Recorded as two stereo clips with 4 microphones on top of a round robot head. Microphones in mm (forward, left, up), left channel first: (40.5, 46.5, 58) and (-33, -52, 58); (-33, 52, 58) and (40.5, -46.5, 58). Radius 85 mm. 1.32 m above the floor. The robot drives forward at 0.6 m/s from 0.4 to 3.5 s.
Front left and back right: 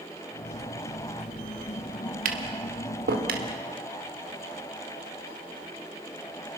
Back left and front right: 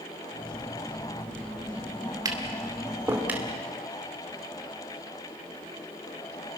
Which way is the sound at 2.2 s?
115° right.